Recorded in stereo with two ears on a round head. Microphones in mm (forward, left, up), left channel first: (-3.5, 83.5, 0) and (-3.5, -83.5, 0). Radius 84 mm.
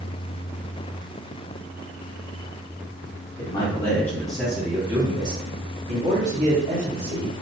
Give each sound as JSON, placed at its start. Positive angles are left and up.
{"t": 3.4, "sound": "a man speaking", "side_deg": 25, "distance_m": 1.0}